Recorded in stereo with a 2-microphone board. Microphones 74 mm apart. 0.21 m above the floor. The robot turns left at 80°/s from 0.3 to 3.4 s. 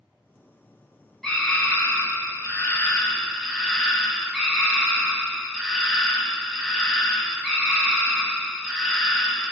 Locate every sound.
1.2 s a scream: 175° left, 1.1 m; by 9.5 s straight ahead, 1.1 m